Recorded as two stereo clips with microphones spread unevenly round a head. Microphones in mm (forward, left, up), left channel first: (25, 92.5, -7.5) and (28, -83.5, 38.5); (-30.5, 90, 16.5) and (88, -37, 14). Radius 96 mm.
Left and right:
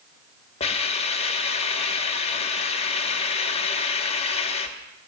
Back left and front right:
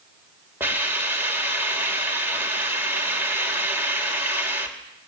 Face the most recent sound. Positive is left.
turn(degrees=30)